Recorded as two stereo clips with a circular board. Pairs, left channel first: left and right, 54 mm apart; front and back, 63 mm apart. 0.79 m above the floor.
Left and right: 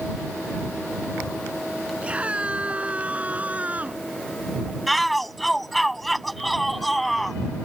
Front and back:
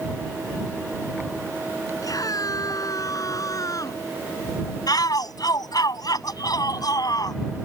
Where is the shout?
Straight ahead.